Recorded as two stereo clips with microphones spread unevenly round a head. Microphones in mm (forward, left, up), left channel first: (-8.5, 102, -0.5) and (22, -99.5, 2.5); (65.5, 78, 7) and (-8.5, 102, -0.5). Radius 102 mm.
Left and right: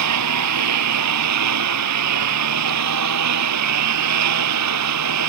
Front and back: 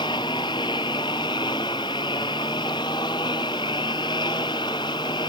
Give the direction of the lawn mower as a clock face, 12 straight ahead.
3 o'clock.